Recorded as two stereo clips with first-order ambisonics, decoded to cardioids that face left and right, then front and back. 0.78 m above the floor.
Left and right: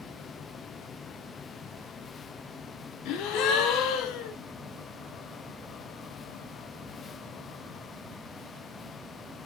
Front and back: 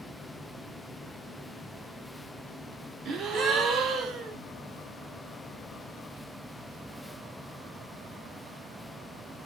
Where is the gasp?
120° left, 0.9 m.